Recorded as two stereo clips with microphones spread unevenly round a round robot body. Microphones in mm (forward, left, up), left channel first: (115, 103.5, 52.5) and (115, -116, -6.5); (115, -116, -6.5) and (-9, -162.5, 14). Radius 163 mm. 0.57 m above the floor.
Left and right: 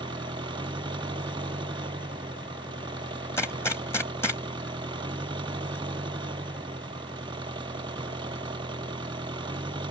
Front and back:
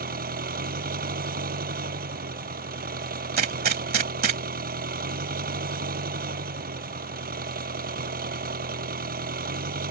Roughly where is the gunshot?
Behind.